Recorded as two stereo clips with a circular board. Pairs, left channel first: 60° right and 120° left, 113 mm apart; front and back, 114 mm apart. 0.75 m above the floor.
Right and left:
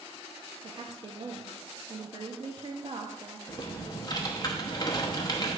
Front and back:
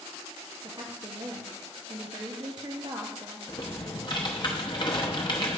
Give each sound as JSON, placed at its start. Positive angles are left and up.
{"t": 0.6, "sound": "a woman speaking", "azimuth_deg": 140, "distance_m": 0.6}
{"t": 3.5, "sound": "typing on a keyboard", "azimuth_deg": -25, "distance_m": 0.8}